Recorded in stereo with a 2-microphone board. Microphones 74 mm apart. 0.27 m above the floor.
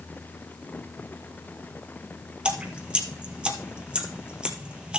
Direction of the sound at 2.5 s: 15° right (ahead or behind).